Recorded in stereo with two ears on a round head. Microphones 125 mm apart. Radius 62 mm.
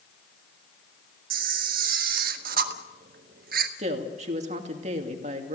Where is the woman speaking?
50° right (ahead or behind), 2.5 m.